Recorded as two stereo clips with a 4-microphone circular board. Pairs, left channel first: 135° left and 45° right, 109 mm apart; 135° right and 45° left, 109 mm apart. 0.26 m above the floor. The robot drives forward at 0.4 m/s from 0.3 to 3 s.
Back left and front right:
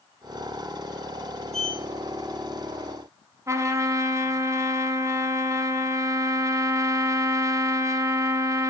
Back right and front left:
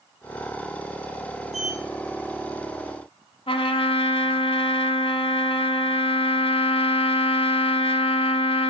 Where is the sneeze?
I don't hear a sneeze.